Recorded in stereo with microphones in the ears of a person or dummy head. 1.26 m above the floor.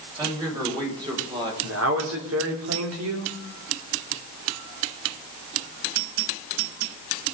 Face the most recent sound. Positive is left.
turn(degrees=-80)